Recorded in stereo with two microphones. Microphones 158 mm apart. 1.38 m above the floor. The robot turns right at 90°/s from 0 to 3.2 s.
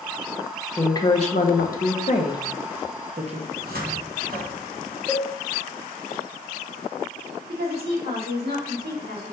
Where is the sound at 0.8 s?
10° left (ahead or behind), 0.7 m; by 3.4 s 45° right (ahead or behind), 0.7 m.